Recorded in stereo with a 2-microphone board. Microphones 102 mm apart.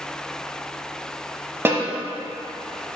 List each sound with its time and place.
1.6 s a snare drum: 25° right (ahead or behind), 0.8 m